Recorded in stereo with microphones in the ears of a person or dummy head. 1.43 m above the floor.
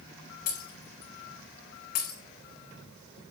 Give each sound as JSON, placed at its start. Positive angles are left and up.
{"t": 0.5, "sound": "breaking glass", "side_deg": 40, "distance_m": 4.0}